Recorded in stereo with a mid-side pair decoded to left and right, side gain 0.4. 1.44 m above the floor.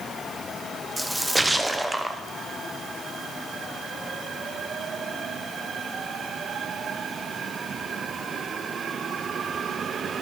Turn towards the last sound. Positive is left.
turn(degrees=-10)